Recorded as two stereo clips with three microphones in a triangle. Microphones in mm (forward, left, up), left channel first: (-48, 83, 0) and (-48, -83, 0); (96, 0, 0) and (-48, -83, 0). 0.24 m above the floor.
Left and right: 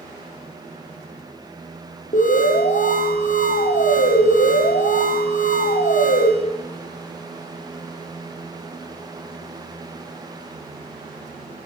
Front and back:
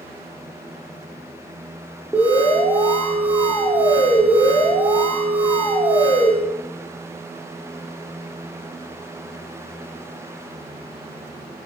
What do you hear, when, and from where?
2.1 s an alarm: 125° left, 7.5 m